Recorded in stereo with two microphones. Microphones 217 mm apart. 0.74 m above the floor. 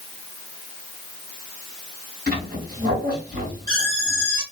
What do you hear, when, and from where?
2.3 s a squeak: 45° right (ahead or behind), 3 m